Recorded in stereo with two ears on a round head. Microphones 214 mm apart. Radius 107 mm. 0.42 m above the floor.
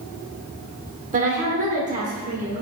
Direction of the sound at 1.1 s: 30° right (ahead or behind).